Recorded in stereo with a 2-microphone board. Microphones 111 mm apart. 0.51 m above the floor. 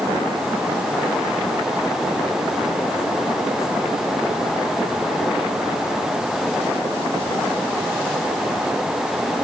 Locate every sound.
Only background noise.